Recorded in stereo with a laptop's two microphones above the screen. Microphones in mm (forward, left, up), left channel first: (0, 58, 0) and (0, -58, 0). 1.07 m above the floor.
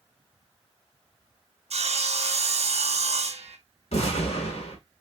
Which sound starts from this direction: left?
An explosion, at 3.9 s.